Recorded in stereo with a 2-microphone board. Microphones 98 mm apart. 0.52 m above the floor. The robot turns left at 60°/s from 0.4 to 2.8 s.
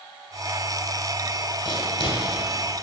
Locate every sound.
1.6 s writing: 60° left (ahead or behind), 1.7 m; by 2.2 s 65° left (ahead or behind), 1.7 m